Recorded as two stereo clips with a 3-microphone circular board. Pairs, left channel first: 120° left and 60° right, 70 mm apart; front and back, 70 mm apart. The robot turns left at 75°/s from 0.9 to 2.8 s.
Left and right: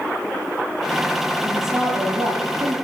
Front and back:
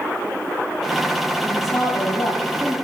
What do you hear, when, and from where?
1.4 s a woman speaking: 45° left, 7.5 m; by 2.8 s 55° right, 7.5 m